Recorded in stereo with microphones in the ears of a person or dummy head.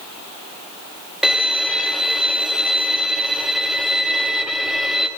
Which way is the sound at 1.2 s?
Centre (ahead or behind).